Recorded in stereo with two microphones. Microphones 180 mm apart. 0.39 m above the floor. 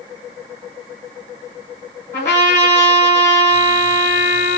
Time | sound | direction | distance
2.1 | a trumpet | 45° left (ahead or behind) | 3.5 m